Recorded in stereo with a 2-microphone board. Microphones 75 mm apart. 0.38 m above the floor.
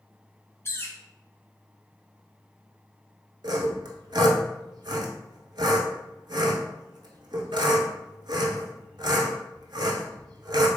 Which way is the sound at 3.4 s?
75° right (ahead or behind).